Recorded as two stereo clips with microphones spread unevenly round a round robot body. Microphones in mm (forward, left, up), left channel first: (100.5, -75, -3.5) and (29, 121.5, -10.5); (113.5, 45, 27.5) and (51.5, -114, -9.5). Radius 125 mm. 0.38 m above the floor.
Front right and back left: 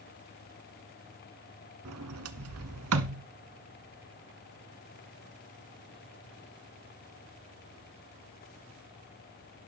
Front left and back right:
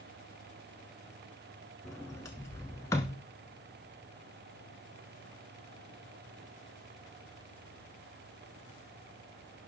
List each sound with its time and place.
1.9 s a sliding door: 145° left, 0.7 m